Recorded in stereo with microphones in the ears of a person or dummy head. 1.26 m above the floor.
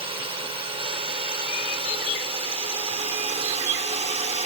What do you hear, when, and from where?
0.0 s a drone: 30° right (ahead or behind); by 4.5 s 35° right (ahead or behind)